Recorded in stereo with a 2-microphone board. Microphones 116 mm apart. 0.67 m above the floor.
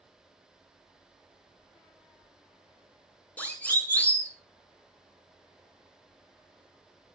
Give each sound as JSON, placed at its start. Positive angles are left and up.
{"t": 3.4, "sound": "a siren", "side_deg": 10, "distance_m": 7.0}